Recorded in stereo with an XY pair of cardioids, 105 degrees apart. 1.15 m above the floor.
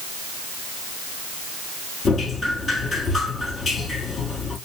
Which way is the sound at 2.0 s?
40° left.